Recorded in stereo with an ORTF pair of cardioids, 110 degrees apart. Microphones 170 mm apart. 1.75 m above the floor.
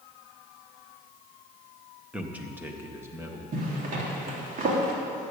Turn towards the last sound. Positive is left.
turn(degrees=-50)